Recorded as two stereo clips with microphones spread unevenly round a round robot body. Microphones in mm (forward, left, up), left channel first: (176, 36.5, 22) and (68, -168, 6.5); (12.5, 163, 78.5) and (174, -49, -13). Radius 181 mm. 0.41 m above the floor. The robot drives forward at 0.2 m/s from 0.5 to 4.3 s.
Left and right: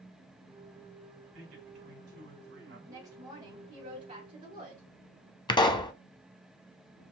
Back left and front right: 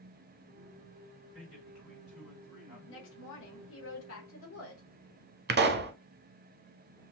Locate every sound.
1.3 s a man speaking: 130° right, 3 m; by 2.8 s 135° right, 3 m
2.9 s a woman speaking: straight behind, 0.9 m
5.5 s a pop: 15° right, 0.7 m